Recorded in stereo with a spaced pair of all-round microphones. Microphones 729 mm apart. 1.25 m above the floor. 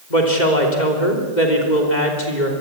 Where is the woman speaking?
75° left (ahead or behind), 3.5 m.